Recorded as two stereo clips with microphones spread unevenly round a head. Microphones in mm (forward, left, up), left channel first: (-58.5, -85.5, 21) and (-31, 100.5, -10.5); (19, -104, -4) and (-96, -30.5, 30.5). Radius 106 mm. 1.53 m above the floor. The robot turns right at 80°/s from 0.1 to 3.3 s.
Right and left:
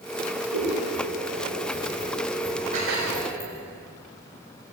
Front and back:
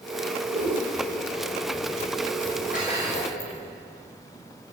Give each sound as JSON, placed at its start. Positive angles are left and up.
{"t": 0.5, "sound": "scissors", "azimuth_deg": 95, "distance_m": 6.5}
{"t": 2.7, "sound": "dishes clattering", "azimuth_deg": 20, "distance_m": 5.5}